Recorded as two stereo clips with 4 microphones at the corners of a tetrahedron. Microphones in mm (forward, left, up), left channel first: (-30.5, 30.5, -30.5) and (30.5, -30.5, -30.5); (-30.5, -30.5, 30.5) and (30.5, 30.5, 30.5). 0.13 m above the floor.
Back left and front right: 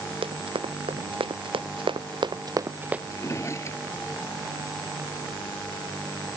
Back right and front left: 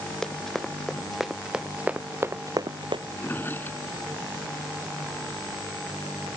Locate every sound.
0.2 s running footsteps: 50° right; by 3.0 s 35° left
3.1 s a drawer: 170° left